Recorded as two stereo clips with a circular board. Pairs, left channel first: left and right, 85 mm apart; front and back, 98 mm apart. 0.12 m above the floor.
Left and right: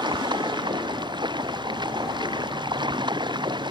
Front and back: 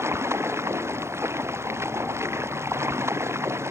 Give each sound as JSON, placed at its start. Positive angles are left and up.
{"t": 0.0, "sound": "running water", "azimuth_deg": -115}